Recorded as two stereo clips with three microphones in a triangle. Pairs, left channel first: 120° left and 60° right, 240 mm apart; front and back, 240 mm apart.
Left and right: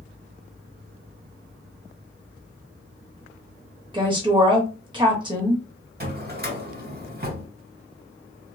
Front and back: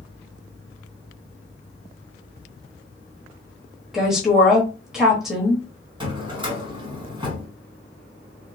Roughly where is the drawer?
Right.